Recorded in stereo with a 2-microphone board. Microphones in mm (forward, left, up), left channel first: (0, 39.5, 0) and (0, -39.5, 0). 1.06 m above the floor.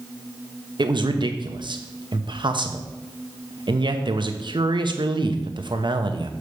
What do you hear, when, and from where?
0.8 s a man speaking: 70° right (ahead or behind), 1.0 m